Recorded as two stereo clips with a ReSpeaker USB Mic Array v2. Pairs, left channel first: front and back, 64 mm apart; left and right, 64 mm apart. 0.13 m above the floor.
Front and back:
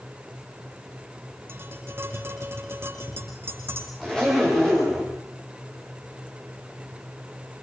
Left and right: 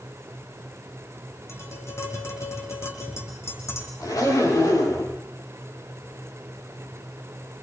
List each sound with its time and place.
1.5 s tapping: 130° left, 6 m
4.0 s a zipper: 80° left, 10 m